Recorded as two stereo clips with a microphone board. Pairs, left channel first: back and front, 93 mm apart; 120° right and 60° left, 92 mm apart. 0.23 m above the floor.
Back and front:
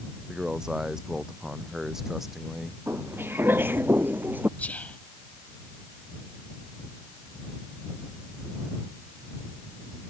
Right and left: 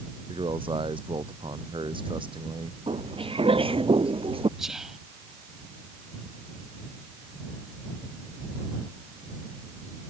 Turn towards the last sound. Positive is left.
turn(degrees=140)